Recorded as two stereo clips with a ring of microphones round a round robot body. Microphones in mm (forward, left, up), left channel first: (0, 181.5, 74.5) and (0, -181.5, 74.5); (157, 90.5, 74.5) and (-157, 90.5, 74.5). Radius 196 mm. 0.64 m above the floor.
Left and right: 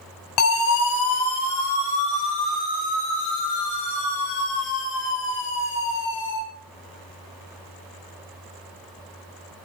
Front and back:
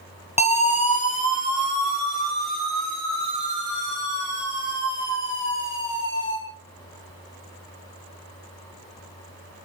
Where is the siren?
70° left, 9.5 m; by 6.4 s 50° left, 14 m.